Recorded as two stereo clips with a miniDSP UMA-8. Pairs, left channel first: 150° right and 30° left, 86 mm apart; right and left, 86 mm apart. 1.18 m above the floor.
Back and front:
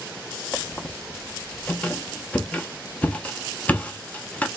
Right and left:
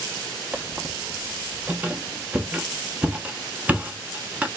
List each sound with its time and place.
0.5 s a squeak: 155° left, 0.6 m